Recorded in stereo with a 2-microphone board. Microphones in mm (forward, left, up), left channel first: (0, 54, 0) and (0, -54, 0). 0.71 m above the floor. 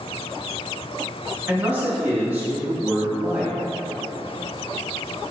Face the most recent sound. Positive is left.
turn(degrees=-15)  # may be behind; listen again after turning